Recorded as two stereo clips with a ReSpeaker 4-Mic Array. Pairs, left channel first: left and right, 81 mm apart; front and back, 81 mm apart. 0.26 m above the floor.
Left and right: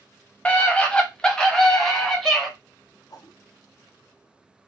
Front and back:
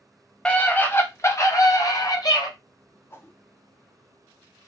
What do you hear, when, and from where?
0.5 s a scream: 55° left, 0.9 m; by 2.5 s 5° left, 1.6 m
3.1 s a whoosh: 55° left, 0.7 m